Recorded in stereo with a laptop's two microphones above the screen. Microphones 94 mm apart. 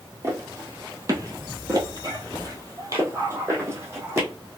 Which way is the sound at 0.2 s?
30° right (ahead or behind).